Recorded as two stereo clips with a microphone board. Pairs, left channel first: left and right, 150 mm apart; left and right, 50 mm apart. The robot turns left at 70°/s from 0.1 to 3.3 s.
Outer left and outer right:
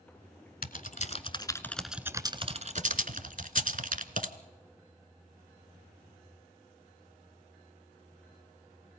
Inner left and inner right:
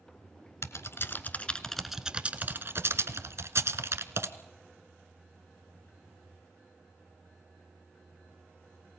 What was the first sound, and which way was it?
Typing on a keyboard, 70° left (ahead or behind).